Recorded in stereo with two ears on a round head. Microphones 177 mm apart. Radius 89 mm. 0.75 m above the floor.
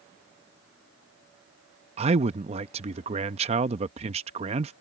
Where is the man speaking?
30° right (ahead or behind).